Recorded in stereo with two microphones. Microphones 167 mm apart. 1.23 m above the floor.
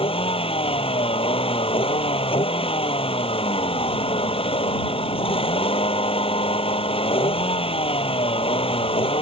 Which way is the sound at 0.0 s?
35° left (ahead or behind).